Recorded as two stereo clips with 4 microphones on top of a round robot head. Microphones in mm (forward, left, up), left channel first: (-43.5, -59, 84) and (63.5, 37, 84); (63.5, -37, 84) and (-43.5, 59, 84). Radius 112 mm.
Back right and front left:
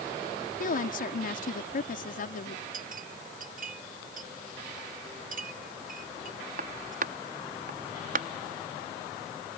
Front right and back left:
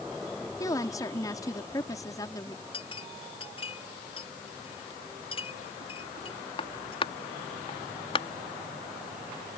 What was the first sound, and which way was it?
A woman speaking, 110° right.